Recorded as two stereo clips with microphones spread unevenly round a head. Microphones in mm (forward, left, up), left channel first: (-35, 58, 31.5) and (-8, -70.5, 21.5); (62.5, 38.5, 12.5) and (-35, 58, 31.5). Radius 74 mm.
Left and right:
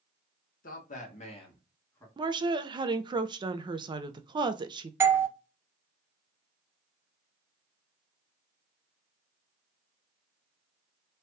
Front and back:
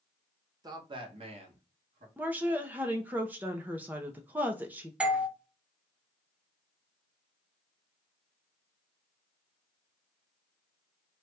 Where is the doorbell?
105° right, 0.5 m.